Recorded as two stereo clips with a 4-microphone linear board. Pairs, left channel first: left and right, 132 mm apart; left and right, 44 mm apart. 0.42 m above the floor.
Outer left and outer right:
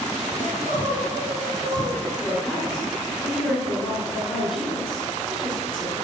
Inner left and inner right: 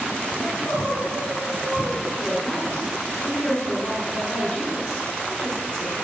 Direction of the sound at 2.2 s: 35° left (ahead or behind).